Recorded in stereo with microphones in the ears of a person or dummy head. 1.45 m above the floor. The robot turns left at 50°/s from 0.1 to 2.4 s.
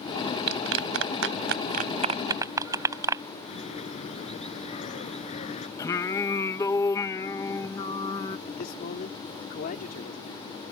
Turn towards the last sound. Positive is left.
turn(degrees=50)  # may be behind; listen again after turning